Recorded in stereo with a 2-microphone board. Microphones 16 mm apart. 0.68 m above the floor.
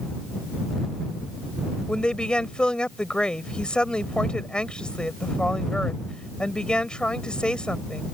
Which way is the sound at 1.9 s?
75° left (ahead or behind).